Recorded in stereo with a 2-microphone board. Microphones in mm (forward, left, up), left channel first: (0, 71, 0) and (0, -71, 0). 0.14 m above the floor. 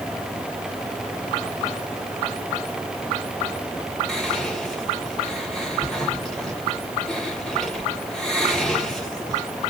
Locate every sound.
4.1 s whispering: 5° left (ahead or behind), 1.3 m